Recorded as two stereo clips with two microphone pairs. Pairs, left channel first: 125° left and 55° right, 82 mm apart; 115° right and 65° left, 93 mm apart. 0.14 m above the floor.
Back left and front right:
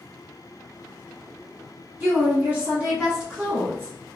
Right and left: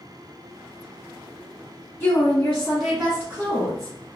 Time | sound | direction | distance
2.0 | a woman speaking | 80° right | 1.8 m